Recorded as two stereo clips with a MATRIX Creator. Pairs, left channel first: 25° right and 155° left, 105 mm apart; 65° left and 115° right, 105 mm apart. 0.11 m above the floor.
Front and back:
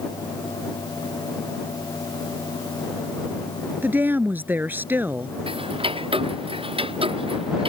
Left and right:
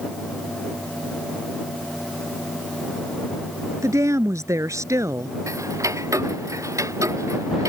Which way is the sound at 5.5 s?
175° right.